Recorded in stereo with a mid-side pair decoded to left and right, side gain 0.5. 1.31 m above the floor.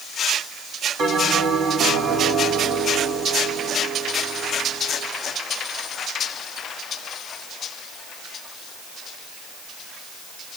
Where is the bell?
70° right, 3.5 m.